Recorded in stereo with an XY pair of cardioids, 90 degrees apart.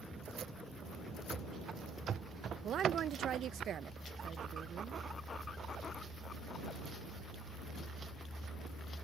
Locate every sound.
1.3 s running footsteps: 50° right; by 3.6 s 65° right
2.6 s a woman speaking: 65° right